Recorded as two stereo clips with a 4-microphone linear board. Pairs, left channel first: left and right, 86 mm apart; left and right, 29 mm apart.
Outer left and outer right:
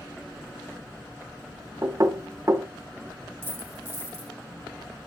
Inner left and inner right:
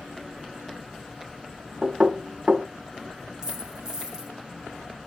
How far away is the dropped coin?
About 5 m.